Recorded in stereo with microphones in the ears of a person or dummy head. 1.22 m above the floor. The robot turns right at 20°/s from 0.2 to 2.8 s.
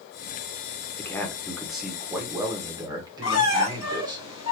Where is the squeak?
80° left, 1.8 m.